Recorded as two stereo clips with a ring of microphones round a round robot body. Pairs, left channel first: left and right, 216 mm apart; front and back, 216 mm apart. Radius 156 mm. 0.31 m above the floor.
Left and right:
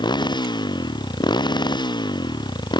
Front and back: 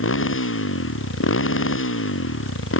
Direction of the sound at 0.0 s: 20° left.